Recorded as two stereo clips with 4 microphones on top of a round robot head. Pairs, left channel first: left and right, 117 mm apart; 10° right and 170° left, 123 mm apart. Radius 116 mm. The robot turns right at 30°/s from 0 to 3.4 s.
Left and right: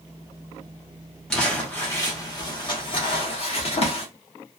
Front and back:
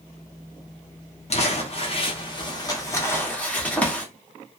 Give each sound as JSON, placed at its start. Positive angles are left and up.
{"t": 1.3, "sound": "crumpling", "azimuth_deg": 5, "distance_m": 1.3}